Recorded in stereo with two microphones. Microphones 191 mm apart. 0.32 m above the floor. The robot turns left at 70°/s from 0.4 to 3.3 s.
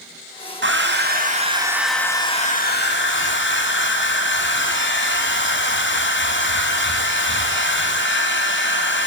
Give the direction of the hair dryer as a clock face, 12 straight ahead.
3 o'clock.